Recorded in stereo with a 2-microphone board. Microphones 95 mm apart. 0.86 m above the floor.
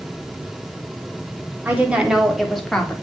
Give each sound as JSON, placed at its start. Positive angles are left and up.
{"t": 1.6, "sound": "a woman speaking", "side_deg": -20, "distance_m": 2.0}